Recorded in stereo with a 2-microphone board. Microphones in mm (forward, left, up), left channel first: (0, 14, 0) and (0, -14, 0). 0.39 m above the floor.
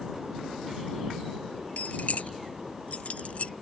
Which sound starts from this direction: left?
Keys jangling, at 1.8 s.